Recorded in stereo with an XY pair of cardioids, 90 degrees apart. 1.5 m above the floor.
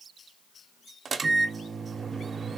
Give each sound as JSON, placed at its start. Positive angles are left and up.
{"t": 1.1, "sound": "a microwave", "azimuth_deg": -45, "distance_m": 0.7}